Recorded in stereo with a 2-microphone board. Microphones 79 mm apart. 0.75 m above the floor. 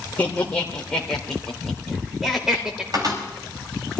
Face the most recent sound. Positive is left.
turn(degrees=-50)  # may be behind; listen again after turning